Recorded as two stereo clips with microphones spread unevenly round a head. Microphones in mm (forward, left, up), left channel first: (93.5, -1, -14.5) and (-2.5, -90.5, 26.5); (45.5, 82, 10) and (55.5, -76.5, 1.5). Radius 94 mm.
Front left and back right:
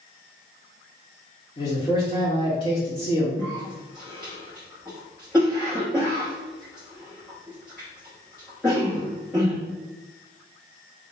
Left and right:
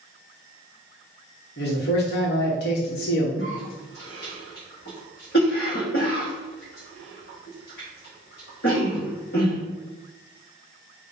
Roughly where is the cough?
Behind left.